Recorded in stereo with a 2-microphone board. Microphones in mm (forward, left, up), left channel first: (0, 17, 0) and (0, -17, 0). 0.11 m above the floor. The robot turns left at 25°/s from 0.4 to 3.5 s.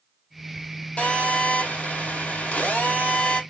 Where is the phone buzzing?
135° left, 2.5 m; by 3.4 s 75° left, 2.5 m.